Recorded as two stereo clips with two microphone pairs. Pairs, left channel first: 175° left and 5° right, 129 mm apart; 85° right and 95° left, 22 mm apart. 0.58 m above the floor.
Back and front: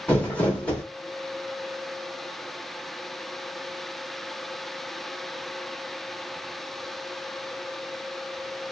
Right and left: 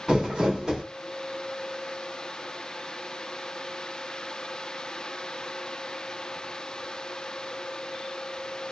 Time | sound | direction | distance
0.1 | crumpling | 110° left | 1.3 m